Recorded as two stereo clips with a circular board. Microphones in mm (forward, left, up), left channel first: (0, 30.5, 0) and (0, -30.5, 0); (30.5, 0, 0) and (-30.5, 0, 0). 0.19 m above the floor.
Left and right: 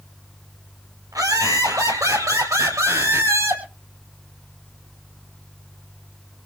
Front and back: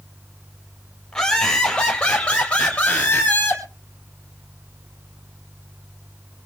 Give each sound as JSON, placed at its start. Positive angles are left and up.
{"t": 1.1, "sound": "laughter", "azimuth_deg": -80, "distance_m": 6.0}